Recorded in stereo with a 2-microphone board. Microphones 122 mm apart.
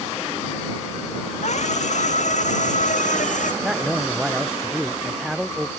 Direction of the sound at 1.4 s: 65° left (ahead or behind).